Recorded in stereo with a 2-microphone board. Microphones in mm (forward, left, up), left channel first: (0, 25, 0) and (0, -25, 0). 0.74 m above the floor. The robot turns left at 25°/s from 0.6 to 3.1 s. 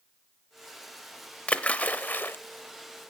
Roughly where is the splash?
Left.